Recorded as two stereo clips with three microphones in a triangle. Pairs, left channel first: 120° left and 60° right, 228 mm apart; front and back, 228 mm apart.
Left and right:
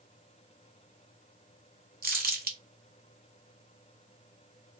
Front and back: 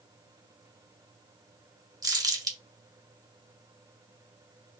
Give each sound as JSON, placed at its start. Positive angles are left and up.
{"t": 2.0, "sound": "crumpling", "azimuth_deg": -105, "distance_m": 0.8}